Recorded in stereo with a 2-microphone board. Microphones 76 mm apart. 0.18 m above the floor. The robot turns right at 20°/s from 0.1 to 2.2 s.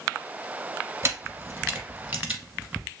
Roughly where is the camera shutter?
Right.